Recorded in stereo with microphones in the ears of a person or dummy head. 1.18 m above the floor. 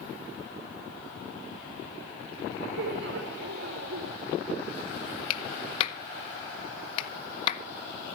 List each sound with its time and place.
2.8 s laughter: 70° right (ahead or behind), 1.7 m
5.3 s a clap: 45° left (ahead or behind), 1.7 m